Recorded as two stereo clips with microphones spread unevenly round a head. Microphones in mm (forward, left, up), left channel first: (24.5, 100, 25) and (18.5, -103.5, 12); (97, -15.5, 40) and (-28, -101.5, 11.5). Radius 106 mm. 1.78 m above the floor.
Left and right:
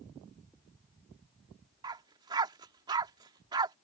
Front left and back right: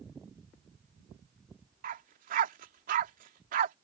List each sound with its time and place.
1.8 s a dog barking: 160° right